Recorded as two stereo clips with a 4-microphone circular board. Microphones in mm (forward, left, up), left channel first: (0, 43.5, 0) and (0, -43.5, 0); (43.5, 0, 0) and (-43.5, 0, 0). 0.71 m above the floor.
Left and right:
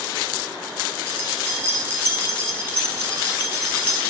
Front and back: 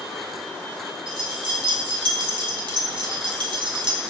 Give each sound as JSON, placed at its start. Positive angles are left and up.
{"t": 1.1, "sound": "keys jangling", "azimuth_deg": -160, "distance_m": 2.5}